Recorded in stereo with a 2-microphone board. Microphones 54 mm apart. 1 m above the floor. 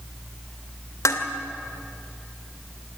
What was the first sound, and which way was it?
Dishes clattering, 75° left (ahead or behind).